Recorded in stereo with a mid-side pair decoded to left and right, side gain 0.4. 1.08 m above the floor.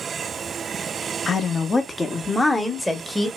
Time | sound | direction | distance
1.3 | a woman speaking | 45° left | 1.1 m